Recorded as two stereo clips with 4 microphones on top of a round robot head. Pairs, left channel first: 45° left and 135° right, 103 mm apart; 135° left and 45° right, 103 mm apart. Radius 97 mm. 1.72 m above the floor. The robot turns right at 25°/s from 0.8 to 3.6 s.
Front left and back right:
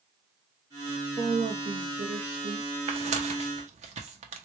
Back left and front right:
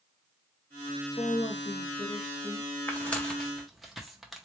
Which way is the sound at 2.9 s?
150° right.